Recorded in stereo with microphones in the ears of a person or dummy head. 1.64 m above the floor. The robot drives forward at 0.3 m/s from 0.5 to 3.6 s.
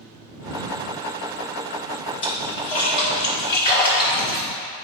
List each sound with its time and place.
2.2 s a splash: 30° left (ahead or behind), 0.7 m; by 4.5 s 20° left (ahead or behind), 1.1 m